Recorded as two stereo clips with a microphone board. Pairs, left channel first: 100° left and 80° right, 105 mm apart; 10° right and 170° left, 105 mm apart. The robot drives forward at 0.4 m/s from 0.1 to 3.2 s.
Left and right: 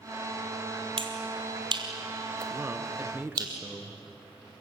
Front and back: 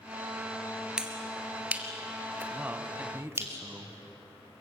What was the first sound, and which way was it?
A finger snap, 110° right.